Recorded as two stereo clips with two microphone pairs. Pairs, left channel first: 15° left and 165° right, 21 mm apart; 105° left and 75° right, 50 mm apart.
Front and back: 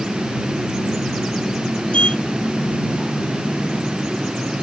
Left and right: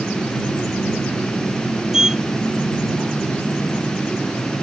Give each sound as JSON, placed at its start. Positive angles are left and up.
{"t": 1.9, "sound": "a sliding door", "azimuth_deg": 0}